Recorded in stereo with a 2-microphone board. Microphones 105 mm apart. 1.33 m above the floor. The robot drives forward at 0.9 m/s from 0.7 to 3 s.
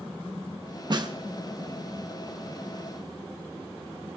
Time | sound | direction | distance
0.9 | a snare drum | 45° right (ahead or behind) | 0.7 m